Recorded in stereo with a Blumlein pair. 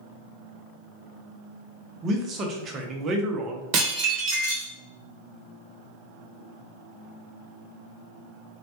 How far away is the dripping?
I don't hear dripping.